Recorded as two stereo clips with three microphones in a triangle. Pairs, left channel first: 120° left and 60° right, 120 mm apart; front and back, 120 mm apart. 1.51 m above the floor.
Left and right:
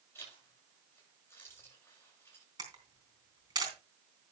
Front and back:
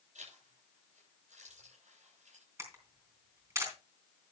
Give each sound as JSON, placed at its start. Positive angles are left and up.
{"t": 0.1, "sound": "a zipper", "azimuth_deg": -170, "distance_m": 8.0}
{"t": 2.6, "sound": "a camera shutter", "azimuth_deg": -115, "distance_m": 3.5}